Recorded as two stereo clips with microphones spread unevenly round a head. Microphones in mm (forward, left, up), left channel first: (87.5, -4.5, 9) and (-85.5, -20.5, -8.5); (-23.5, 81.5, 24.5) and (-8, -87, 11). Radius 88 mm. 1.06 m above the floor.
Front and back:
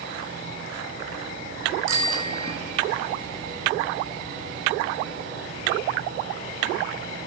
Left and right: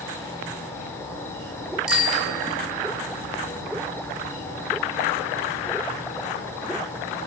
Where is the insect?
170° left, 4.5 m.